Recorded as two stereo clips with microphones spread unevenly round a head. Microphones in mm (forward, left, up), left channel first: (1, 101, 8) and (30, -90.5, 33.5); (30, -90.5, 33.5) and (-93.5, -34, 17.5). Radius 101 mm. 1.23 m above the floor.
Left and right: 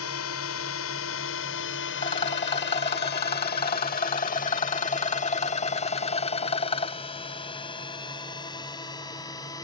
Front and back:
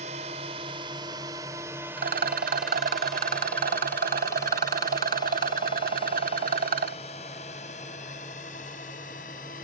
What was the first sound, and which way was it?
A drone, 100° left.